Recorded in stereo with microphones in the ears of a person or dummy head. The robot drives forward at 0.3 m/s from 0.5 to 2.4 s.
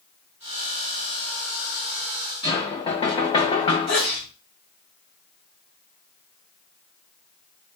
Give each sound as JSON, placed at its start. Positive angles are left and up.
{"t": 2.4, "sound": "knocking", "side_deg": 30, "distance_m": 1.0}
{"t": 3.9, "sound": "a sneeze", "side_deg": 55, "distance_m": 2.0}